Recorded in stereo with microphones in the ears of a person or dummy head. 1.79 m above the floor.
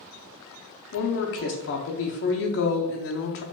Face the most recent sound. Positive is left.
turn(degrees=55)  # may be behind; listen again after turning